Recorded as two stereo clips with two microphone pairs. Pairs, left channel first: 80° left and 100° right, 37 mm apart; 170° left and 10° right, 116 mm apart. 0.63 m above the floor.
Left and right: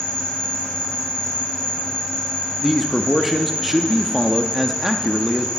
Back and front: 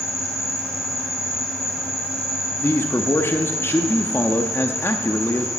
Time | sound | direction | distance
0.0 | an insect | 5° left | 4.5 m
2.6 | a man speaking | straight behind | 0.6 m